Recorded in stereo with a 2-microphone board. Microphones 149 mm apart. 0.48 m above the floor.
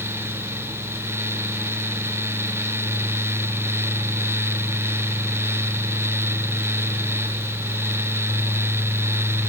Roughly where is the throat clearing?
I don't hear throat clearing.